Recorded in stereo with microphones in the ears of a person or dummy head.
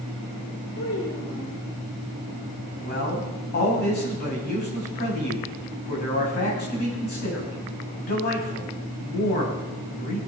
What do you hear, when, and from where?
0.8 s a child speaking: 85° left, 3.5 m
2.8 s a man speaking: 50° left (ahead or behind), 6.5 m